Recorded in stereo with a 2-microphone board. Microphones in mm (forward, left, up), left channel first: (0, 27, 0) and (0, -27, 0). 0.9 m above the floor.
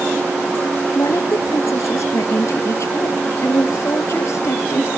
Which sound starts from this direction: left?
A woman speaking, at 0.9 s.